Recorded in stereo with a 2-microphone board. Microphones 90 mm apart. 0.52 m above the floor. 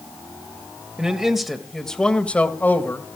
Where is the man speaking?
10° right (ahead or behind), 2 m; by 3.2 s 30° left (ahead or behind), 2 m.